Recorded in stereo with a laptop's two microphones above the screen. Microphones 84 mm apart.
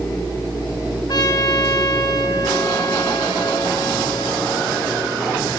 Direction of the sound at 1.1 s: 55° left (ahead or behind).